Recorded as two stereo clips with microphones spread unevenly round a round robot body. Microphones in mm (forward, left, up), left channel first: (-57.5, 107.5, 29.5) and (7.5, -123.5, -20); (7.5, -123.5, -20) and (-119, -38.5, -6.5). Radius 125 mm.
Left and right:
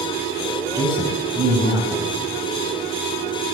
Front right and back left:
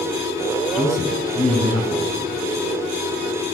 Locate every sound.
0.8 s a man speaking: straight ahead, 3 m